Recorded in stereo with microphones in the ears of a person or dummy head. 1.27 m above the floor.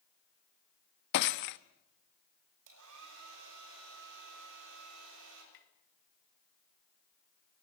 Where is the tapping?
50° left (ahead or behind), 3 m.